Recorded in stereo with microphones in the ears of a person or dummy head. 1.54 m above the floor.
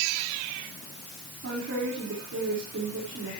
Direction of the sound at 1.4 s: 65° right (ahead or behind).